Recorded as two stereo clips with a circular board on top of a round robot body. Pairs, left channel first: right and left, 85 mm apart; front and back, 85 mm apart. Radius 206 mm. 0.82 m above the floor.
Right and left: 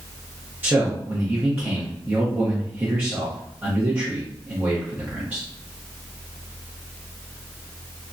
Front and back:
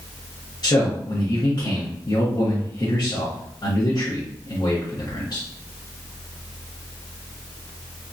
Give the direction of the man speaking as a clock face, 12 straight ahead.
11 o'clock.